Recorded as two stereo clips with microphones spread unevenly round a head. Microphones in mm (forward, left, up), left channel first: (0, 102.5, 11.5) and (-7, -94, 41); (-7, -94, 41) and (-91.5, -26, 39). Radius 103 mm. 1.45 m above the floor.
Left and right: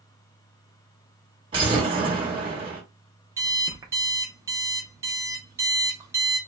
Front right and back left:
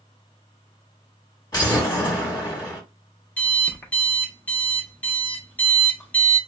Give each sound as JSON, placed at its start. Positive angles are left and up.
{"t": 1.5, "sound": "an explosion", "azimuth_deg": -65, "distance_m": 1.2}
{"t": 3.4, "sound": "an alarm clock", "azimuth_deg": -85, "distance_m": 0.6}